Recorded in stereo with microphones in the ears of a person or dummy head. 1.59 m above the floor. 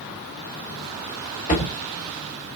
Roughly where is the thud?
Left.